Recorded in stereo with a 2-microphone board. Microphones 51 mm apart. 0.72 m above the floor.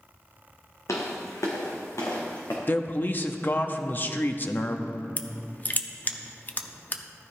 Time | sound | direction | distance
0.9 | footsteps | 75° left (ahead or behind) | 2.5 m
2.7 | a man speaking | 40° left (ahead or behind) | 0.8 m
5.2 | crushing | 35° left (ahead or behind) | 0.7 m